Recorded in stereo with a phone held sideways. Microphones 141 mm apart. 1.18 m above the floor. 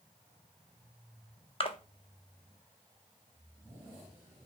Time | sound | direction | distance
1.6 | a splash | 40° left (ahead or behind) | 0.6 m